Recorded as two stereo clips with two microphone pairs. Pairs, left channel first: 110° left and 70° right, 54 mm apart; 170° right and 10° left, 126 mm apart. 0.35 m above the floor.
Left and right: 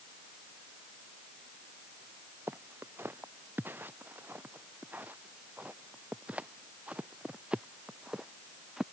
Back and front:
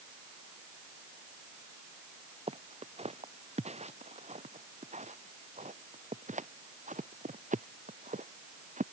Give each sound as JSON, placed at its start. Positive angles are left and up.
{"t": 2.5, "sound": "footsteps", "azimuth_deg": -25}